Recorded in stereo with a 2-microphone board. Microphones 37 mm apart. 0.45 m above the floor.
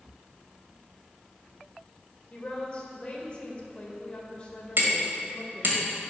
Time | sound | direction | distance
2.3 | a woman speaking | 30° left (ahead or behind) | 2.0 m
4.8 | hammering | 65° right (ahead or behind) | 2.5 m